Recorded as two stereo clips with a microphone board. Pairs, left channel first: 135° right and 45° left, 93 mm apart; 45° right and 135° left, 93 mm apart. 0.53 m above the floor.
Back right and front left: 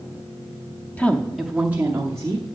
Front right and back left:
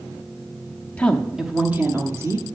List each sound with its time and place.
1.0 s a woman speaking: 95° right, 0.8 m; by 2.5 s 90° left, 1.1 m